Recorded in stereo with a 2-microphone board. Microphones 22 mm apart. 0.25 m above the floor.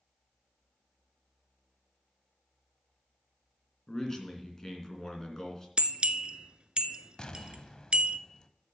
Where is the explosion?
45° left (ahead or behind), 0.7 m.